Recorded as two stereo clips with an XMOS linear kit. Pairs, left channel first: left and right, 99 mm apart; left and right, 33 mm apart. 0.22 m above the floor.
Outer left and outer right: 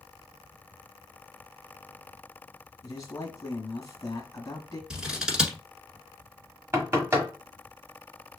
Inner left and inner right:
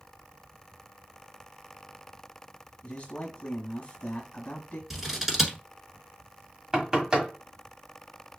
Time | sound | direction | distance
2.8 | a man speaking | 35° left (ahead or behind) | 1.2 m
4.9 | scissors | 5° right (ahead or behind) | 1.2 m
6.7 | knocking | 25° right (ahead or behind) | 1.4 m